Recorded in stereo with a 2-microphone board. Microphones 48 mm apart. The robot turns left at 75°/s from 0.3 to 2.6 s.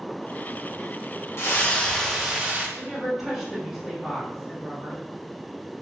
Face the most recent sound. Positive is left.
turn(degrees=-5)  # may be behind; listen again after turning